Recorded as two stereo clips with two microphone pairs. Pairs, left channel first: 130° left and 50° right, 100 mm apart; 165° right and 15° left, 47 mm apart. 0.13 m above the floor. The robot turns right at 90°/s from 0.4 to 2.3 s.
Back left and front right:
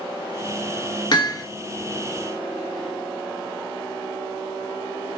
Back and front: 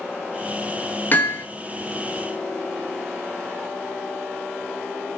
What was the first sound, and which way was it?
Hammering, 155° left.